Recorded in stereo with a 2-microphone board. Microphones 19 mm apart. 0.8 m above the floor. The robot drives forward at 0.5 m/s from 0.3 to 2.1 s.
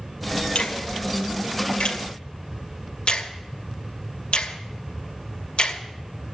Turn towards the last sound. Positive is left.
turn(degrees=65)  # may be behind; listen again after turning